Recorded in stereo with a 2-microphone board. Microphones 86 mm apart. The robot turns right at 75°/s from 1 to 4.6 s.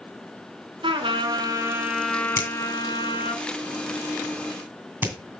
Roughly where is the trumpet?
Right.